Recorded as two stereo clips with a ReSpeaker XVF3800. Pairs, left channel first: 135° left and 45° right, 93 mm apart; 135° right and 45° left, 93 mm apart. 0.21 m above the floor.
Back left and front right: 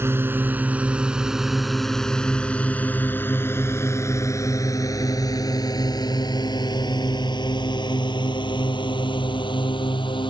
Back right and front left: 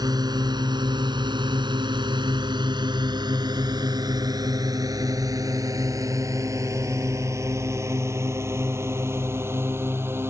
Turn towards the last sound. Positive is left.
turn(degrees=110)